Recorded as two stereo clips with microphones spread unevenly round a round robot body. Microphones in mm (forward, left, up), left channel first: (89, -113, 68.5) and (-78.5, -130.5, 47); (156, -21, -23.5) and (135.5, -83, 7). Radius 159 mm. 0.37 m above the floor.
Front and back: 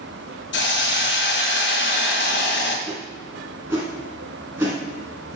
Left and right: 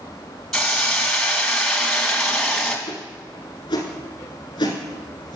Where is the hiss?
10° right, 1.9 m.